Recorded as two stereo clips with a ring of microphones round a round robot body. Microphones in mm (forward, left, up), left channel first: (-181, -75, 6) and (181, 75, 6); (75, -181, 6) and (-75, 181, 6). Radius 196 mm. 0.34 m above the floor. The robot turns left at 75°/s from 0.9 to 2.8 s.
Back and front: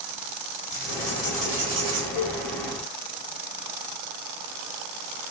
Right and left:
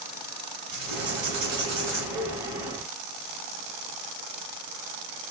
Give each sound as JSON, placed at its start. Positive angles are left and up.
{"t": 0.7, "sound": "writing", "azimuth_deg": 150, "distance_m": 1.8}
{"t": 2.1, "sound": "a cowbell", "azimuth_deg": 90, "distance_m": 0.6}